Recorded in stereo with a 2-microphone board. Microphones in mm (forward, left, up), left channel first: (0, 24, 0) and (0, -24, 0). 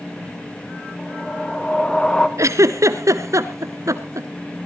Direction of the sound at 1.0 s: 15° left (ahead or behind).